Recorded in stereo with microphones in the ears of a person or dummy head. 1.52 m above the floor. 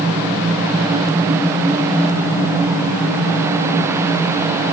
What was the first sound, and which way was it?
Only background noise.